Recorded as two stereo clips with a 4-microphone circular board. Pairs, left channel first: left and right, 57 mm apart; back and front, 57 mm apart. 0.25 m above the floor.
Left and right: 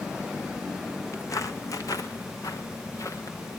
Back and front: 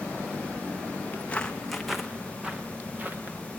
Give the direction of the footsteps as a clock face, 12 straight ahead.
8 o'clock.